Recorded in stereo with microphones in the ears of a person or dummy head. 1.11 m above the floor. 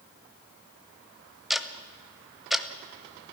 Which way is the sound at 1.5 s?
5° right (ahead or behind).